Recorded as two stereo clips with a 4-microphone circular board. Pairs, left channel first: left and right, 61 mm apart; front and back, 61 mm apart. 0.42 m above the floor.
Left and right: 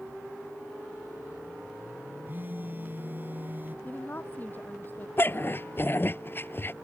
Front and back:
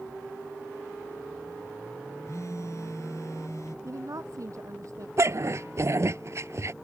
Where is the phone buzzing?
35° right.